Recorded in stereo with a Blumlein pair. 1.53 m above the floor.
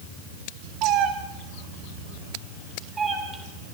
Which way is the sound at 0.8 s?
40° right.